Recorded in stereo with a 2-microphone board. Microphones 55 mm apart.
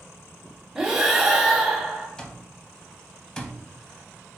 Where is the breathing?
10° right (ahead or behind), 0.8 m.